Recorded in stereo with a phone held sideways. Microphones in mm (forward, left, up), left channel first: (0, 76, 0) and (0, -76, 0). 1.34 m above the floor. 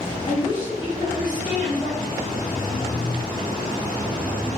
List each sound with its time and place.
0.3 s a woman speaking: 25° left (ahead or behind), 1.2 m